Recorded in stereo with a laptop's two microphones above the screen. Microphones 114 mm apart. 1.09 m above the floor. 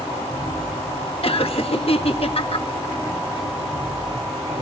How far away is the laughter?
About 1.4 m.